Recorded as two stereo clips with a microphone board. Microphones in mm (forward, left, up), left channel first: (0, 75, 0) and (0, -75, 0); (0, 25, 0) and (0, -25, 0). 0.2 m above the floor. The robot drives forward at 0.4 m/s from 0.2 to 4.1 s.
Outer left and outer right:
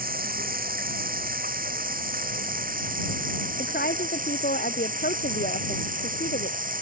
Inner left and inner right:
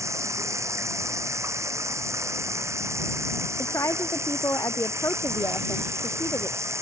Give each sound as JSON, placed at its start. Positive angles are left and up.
{"t": 0.0, "sound": "running water", "side_deg": -70}
{"t": 3.6, "sound": "a woman speaking", "side_deg": 85}